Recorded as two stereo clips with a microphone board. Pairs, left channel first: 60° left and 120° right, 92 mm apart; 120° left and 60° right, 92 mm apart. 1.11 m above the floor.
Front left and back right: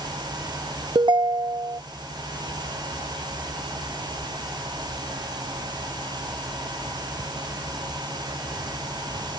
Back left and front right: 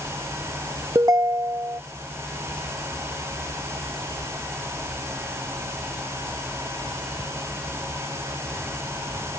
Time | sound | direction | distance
0.9 | a ringtone | 105° right | ?